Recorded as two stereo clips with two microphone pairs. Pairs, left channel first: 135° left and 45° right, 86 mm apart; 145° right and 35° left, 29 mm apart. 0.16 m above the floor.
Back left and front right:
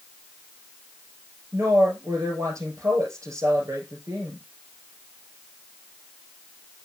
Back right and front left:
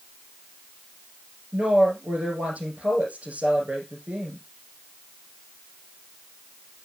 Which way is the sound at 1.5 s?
5° left.